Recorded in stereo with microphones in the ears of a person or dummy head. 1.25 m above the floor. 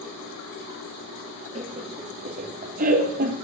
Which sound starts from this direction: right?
Laughter, at 1.6 s.